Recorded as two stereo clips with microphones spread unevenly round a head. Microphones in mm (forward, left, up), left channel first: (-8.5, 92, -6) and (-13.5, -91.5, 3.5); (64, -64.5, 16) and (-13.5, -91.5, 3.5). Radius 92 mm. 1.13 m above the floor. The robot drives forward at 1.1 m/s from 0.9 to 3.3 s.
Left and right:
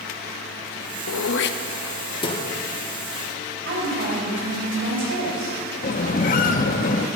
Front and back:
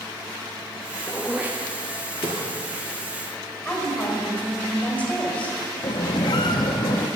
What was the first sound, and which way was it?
Throat clearing, 80° left.